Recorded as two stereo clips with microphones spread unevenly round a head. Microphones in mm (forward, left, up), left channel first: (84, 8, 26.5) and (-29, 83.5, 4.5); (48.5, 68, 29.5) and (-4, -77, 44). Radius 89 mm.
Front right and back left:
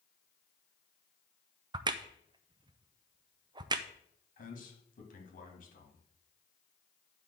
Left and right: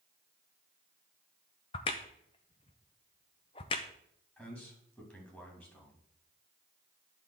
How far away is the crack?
About 0.5 m.